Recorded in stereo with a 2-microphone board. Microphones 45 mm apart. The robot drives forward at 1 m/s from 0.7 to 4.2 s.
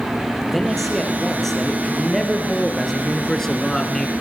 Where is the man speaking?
5° left (ahead or behind), 4.5 m; by 4.1 s 10° left (ahead or behind), 1.7 m.